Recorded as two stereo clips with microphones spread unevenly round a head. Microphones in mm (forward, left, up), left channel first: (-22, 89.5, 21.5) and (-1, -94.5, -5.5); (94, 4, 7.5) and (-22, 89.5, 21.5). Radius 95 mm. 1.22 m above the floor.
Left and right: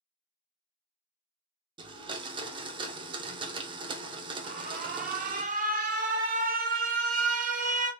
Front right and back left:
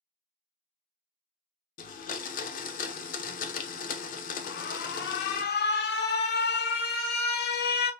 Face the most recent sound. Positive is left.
turn(degrees=-30)